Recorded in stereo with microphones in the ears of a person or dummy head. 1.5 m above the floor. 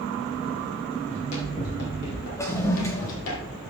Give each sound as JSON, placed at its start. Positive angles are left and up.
{"t": 1.1, "sound": "running footsteps", "side_deg": 40, "distance_m": 4.0}
{"t": 2.4, "sound": "a toilet flushing", "side_deg": 15, "distance_m": 1.0}